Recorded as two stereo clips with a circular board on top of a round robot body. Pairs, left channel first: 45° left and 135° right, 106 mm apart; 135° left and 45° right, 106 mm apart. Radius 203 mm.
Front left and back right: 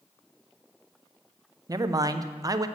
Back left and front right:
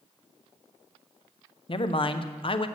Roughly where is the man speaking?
Behind.